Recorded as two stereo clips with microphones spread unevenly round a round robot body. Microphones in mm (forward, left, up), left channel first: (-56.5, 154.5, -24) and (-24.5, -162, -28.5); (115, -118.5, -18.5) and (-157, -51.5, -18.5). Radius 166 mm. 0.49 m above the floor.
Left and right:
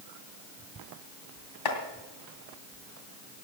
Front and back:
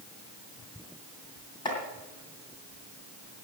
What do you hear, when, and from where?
1.6 s chopping: 65° left, 2.5 m